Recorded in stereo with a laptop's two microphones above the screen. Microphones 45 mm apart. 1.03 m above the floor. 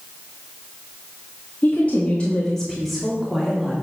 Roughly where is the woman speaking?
Left.